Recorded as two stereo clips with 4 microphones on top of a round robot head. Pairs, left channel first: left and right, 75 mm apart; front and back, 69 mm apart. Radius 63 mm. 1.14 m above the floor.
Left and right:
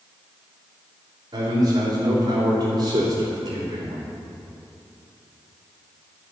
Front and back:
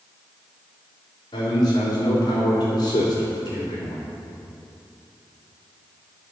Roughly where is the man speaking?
Ahead right.